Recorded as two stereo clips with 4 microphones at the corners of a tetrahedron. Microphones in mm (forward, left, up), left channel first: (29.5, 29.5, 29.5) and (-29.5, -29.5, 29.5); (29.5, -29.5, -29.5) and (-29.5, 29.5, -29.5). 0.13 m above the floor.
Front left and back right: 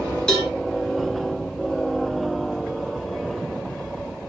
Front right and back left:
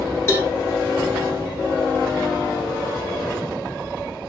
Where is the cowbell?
30° right, 1.1 m.